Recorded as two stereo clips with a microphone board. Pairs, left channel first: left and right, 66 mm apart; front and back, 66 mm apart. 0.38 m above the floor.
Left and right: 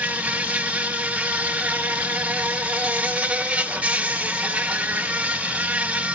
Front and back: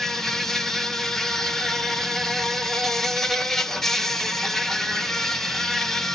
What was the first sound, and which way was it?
An insect, 75° right.